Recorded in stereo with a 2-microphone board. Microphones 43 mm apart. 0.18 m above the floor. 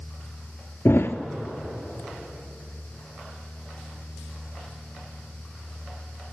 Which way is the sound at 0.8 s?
70° left (ahead or behind).